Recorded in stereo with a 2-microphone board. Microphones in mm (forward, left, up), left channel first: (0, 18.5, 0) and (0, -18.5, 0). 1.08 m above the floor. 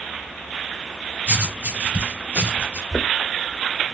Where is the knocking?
10° left (ahead or behind), 0.5 m.